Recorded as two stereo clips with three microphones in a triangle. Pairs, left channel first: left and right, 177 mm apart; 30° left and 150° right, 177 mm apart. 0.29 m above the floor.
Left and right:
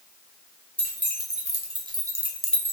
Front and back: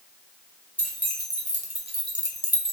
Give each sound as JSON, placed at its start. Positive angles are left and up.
{"t": 0.8, "sound": "keys jangling", "azimuth_deg": -120, "distance_m": 1.4}